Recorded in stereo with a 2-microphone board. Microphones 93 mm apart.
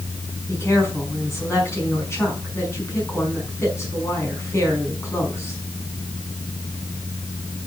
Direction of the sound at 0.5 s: 30° left (ahead or behind).